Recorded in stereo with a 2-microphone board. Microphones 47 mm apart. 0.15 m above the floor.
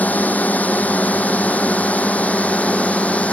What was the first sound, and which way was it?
A drone, 35° left (ahead or behind).